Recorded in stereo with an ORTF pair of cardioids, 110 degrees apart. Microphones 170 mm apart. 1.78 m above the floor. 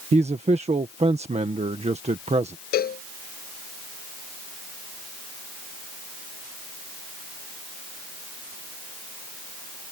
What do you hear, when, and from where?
0.1 s a man speaking: 40° right
2.7 s a cowbell: 65° left